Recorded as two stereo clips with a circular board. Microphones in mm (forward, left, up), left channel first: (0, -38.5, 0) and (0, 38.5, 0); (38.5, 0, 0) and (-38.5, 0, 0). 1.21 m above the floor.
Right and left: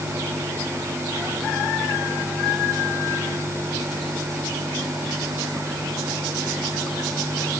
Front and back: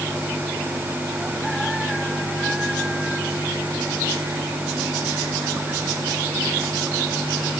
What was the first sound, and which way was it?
Only background noise.